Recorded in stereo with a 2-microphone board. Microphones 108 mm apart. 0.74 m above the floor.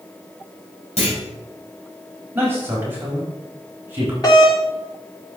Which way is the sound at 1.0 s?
75° left (ahead or behind).